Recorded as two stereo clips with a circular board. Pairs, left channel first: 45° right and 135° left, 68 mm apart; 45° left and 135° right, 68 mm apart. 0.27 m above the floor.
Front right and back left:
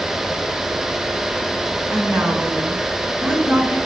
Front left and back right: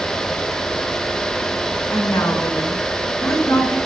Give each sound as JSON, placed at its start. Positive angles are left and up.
{"t": 1.9, "sound": "a woman speaking", "azimuth_deg": 85, "distance_m": 2.5}